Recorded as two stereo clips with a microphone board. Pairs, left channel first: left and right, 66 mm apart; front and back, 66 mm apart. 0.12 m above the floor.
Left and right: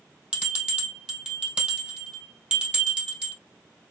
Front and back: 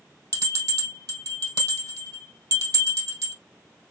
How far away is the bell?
About 2 m.